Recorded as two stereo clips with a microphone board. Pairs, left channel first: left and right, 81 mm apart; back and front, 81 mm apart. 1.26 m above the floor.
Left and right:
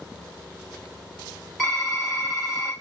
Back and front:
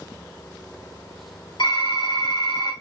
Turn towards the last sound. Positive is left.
turn(degrees=175)